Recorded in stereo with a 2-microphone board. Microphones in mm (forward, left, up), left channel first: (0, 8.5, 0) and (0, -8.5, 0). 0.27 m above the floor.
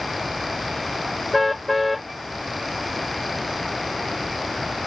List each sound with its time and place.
1.3 s a car horn: 5° right (ahead or behind)